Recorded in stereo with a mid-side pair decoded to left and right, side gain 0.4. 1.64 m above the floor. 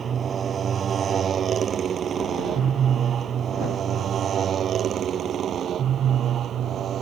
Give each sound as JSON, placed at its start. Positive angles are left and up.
{"t": 0.0, "sound": "a motorcycle", "azimuth_deg": -55}